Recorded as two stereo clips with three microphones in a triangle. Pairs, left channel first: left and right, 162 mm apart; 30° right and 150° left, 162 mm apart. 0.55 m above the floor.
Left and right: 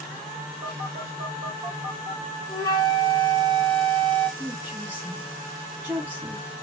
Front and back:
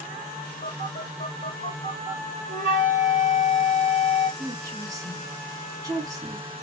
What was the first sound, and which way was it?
A phone buzzing, 60° right.